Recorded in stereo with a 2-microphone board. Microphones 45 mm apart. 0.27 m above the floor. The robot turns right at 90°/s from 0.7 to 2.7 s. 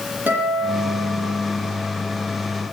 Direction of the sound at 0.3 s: 40° right.